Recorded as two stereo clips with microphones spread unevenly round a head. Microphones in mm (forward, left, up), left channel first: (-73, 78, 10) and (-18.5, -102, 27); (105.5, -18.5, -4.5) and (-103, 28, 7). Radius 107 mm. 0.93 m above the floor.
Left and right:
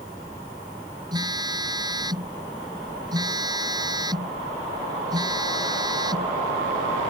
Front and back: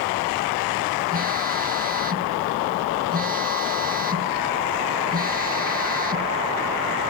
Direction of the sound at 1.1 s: 140° right.